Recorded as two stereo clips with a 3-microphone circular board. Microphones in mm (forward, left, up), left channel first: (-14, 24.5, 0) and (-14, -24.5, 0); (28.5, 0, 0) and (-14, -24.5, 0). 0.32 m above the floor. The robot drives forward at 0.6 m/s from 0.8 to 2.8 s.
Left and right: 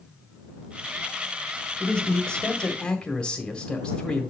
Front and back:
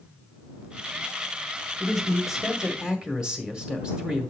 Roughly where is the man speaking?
Behind left.